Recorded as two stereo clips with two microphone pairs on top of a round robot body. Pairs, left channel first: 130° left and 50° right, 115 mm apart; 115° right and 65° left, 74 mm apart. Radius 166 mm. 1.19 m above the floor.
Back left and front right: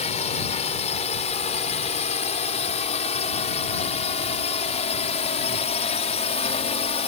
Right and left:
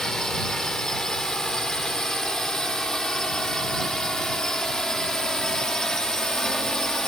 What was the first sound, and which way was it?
A drone, 160° left.